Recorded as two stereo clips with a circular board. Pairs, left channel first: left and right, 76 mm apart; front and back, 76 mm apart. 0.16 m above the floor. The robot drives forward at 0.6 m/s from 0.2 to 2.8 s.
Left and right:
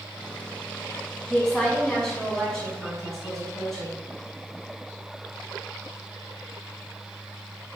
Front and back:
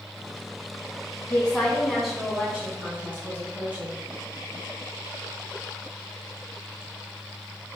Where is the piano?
I don't hear a piano.